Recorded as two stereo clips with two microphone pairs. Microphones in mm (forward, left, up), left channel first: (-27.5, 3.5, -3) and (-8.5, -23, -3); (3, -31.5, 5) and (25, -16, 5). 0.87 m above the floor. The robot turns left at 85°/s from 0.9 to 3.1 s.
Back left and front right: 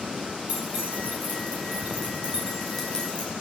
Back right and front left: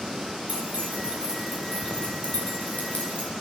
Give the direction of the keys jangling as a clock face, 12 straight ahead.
12 o'clock.